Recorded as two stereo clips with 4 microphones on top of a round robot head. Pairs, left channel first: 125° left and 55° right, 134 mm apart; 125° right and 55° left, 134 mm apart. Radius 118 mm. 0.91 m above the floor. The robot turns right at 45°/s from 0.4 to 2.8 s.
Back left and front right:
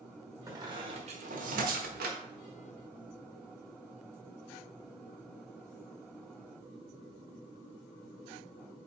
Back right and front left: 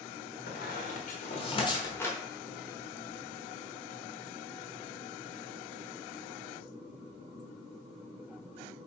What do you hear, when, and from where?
0.5 s a squeak: 125° right, 1.3 m; by 2.2 s 45° right, 1.3 m